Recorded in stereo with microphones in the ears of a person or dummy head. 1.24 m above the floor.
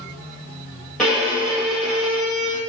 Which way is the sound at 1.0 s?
5° left (ahead or behind).